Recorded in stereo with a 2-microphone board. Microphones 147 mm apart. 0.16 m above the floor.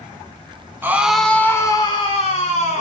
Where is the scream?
15° right (ahead or behind), 1.1 m; by 2.8 s 55° left (ahead or behind), 1.8 m.